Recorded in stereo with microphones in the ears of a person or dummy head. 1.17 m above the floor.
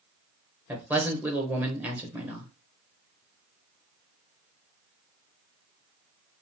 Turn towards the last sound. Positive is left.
turn(degrees=-10)  # may be behind; listen again after turning